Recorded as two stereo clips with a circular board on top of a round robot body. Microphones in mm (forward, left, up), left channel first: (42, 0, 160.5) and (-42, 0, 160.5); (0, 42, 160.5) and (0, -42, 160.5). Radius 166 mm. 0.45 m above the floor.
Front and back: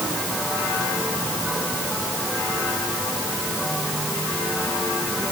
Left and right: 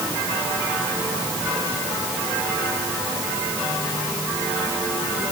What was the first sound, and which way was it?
Only background noise.